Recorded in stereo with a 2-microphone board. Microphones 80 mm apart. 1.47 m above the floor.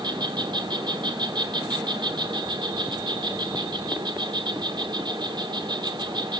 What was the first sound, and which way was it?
An insect, 75° right (ahead or behind).